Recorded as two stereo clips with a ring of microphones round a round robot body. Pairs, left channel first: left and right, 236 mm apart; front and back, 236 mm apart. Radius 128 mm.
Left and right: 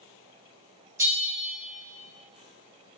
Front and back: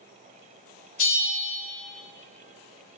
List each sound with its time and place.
1.0 s a bell: 20° right, 1.2 m